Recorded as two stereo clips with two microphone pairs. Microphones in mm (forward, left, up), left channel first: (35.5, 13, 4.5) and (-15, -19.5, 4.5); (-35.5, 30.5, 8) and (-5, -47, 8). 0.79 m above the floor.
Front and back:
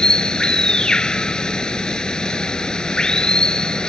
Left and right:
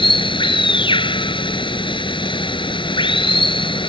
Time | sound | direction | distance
0.0 | running water | 110° left | ?